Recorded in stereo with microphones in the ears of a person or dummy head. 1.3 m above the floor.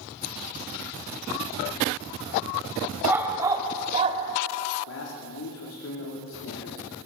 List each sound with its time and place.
3.0 s a dog barking: 10° right (ahead or behind), 2 m; by 4.2 s 40° right (ahead or behind), 1.5 m
4.9 s a man speaking: 75° left (ahead or behind), 3 m